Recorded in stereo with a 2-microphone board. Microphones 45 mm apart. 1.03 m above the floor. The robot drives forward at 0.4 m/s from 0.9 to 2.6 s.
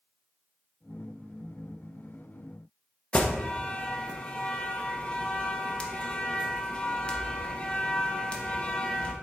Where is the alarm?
25° left (ahead or behind), 1.1 m.